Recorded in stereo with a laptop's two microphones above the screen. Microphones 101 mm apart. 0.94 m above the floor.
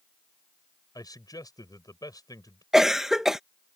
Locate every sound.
0.9 s a man speaking: 40° left (ahead or behind)
2.7 s a cough: 5° right (ahead or behind)